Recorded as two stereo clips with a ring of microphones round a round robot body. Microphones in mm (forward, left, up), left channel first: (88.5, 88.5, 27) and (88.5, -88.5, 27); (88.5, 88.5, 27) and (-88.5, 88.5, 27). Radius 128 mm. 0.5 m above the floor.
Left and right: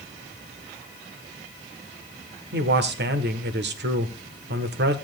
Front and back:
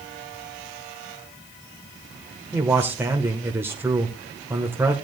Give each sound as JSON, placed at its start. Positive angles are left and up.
{"t": 2.5, "sound": "a man speaking", "azimuth_deg": -100, "distance_m": 1.3}